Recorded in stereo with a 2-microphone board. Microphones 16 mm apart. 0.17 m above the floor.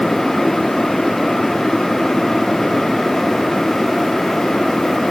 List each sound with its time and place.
Only background noise.